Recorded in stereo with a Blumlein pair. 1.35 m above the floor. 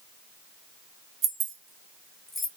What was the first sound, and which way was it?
Keys jangling, 35° right.